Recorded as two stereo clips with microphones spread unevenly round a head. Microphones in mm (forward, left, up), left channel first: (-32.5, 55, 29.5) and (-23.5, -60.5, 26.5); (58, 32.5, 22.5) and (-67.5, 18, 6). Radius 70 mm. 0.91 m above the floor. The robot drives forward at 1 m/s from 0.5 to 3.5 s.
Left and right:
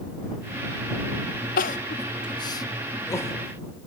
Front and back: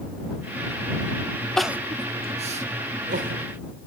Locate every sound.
1.6 s crying: 90° left, 0.6 m; by 3.4 s 165° left, 1.9 m